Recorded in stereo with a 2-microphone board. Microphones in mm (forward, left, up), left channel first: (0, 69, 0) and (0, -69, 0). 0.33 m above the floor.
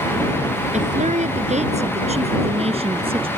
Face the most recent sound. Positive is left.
turn(degrees=-45)  # may be behind; listen again after turning